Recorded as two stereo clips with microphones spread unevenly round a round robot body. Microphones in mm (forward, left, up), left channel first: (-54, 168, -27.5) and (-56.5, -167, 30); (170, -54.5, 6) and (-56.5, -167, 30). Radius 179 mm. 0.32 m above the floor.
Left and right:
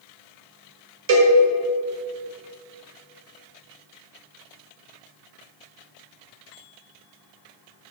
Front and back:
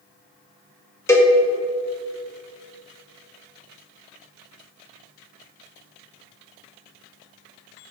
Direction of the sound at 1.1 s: 45° right.